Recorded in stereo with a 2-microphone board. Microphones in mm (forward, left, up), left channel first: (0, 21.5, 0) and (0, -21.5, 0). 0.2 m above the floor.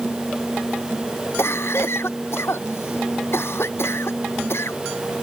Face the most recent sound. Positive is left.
turn(degrees=75)  # may be behind; listen again after turning